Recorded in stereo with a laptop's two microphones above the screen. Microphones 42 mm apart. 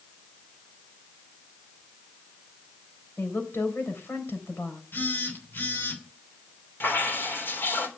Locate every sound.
3.2 s a woman speaking: 75° left (ahead or behind), 3.5 m
4.9 s a phone buzzing: 60° left (ahead or behind), 3 m
6.8 s dripping: 65° left (ahead or behind), 4 m